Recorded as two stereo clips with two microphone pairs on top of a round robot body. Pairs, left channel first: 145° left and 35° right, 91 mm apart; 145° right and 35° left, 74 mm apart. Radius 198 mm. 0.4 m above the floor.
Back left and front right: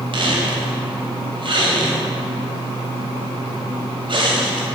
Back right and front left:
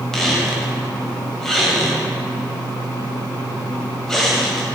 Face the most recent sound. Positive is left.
turn(degrees=-65)